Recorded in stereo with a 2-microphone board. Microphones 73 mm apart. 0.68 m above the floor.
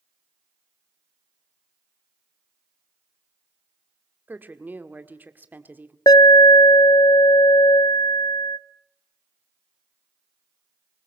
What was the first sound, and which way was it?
A woman speaking, 25° right (ahead or behind).